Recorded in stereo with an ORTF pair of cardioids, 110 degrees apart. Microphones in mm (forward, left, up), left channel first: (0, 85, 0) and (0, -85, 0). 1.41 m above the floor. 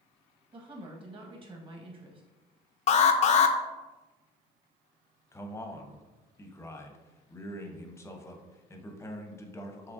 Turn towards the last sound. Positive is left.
turn(degrees=15)